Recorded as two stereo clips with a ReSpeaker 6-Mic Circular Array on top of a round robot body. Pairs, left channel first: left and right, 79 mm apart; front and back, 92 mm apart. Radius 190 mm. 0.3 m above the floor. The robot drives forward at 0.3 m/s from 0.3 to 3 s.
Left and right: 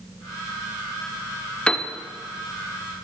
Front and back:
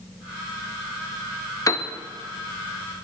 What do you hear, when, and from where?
1.7 s a piano: 20° left, 1.3 m